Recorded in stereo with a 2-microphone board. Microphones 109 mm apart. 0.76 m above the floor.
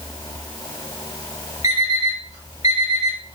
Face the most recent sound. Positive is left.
turn(degrees=85)